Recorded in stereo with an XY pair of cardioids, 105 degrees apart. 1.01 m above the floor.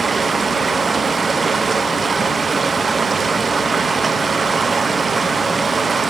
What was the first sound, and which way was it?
Running water, 30° right.